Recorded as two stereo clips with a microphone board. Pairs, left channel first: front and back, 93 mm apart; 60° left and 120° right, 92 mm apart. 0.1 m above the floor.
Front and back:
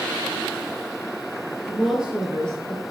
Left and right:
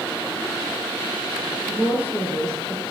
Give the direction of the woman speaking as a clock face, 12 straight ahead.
2 o'clock.